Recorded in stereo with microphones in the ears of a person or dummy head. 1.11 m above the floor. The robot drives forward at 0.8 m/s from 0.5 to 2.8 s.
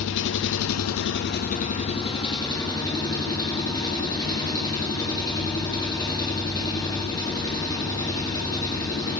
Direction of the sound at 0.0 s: 70° left (ahead or behind).